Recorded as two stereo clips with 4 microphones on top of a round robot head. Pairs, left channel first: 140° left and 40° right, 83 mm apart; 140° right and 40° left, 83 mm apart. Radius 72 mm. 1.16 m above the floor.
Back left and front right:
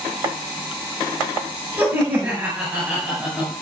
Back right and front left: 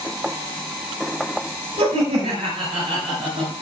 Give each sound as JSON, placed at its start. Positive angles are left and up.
{"t": 1.8, "sound": "laughter", "azimuth_deg": 25, "distance_m": 5.5}